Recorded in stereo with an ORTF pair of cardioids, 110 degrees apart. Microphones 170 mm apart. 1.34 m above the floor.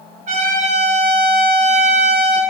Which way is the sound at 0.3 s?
45° right.